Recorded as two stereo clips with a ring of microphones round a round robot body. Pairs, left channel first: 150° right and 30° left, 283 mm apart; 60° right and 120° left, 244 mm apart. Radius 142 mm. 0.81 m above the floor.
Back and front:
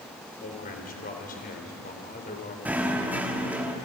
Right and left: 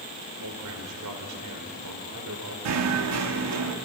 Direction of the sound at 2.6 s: 115° left.